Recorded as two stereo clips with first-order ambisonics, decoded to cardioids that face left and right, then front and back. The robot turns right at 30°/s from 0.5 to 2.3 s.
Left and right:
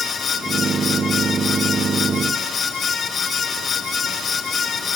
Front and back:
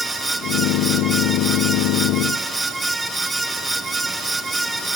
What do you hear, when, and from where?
Only background noise.